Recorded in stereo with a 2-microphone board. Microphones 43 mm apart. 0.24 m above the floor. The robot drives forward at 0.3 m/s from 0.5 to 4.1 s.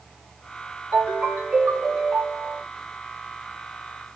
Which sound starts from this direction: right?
A ringtone, at 0.9 s.